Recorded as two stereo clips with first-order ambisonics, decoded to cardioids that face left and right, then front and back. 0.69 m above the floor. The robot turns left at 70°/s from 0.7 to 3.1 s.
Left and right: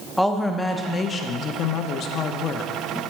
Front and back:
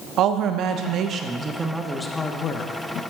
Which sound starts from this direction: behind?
A woman speaking, at 0.2 s.